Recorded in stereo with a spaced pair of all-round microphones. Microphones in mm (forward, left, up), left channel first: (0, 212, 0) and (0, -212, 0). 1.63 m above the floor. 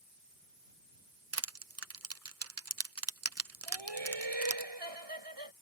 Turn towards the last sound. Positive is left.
turn(degrees=-80)